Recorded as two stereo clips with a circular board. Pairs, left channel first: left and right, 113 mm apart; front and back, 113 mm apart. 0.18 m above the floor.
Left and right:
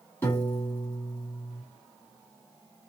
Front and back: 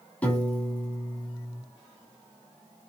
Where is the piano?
55° left, 1.2 m.